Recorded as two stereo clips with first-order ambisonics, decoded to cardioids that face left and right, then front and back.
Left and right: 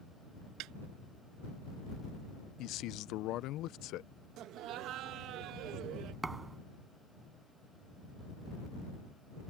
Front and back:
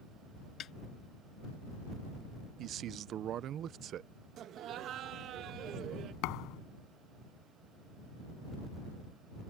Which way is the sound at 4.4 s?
130° right.